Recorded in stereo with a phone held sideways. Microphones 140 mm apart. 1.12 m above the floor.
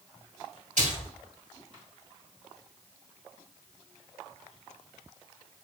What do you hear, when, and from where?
0.8 s a splash: 70° right (ahead or behind), 2 m